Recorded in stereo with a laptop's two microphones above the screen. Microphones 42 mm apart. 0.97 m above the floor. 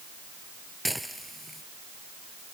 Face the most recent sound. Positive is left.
turn(degrees=0)  # may be behind; listen again after turning